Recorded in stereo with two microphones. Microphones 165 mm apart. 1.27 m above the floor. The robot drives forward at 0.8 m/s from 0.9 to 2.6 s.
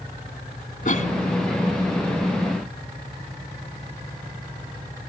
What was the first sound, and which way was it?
A cough, 55° left (ahead or behind).